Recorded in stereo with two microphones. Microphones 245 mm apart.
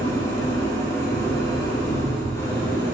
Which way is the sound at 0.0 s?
10° left (ahead or behind).